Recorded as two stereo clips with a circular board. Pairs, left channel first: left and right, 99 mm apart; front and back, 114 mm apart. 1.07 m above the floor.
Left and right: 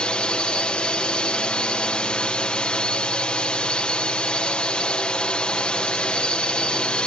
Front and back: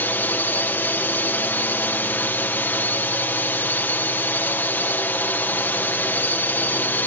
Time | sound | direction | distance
0.0 | a drone | 30° left | ?